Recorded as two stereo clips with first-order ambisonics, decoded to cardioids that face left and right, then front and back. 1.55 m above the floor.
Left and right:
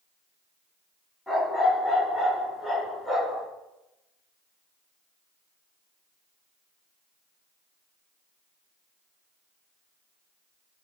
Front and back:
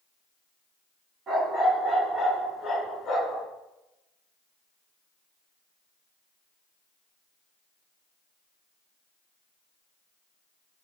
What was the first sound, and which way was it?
A dog barking, 165° left.